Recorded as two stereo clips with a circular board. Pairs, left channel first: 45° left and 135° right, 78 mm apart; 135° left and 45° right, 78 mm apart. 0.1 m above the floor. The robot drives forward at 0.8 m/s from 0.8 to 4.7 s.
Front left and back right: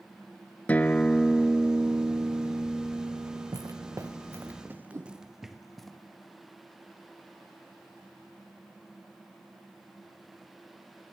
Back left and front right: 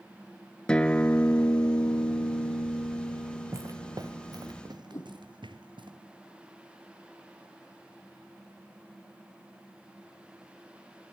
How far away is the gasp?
I don't hear a gasp.